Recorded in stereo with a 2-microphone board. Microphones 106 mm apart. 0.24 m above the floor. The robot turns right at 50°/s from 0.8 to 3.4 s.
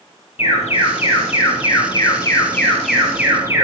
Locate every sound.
0.4 s an alarm: 75° left, 5.5 m; by 3.6 s 155° right, 5.5 m